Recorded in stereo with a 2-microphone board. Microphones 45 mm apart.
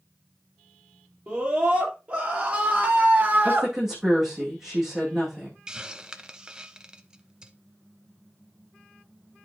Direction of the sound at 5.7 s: 20° right (ahead or behind).